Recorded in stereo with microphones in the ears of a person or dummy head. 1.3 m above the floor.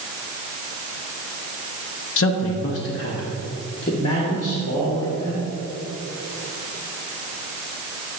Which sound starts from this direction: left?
A man speaking, at 2.2 s.